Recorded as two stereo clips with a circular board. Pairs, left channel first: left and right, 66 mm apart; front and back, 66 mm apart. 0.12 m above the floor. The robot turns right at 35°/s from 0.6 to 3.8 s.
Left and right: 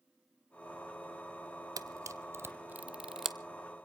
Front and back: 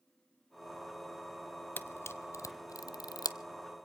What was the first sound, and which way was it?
A camera shutter, 60° right.